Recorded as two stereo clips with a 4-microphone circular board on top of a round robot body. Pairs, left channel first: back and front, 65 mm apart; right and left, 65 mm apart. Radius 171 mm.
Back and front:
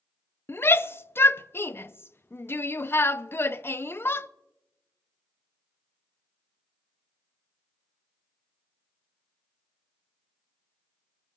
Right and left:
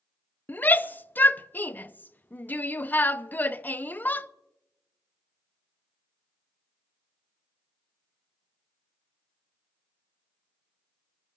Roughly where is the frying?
I don't hear frying.